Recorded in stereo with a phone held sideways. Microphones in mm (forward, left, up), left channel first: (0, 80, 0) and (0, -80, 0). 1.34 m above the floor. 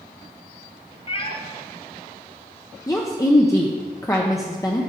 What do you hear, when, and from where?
1.1 s a cat meowing: 35° left (ahead or behind), 0.6 m
2.9 s a woman speaking: 20° left (ahead or behind), 0.6 m